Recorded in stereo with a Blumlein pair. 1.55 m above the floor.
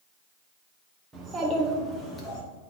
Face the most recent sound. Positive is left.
turn(degrees=35)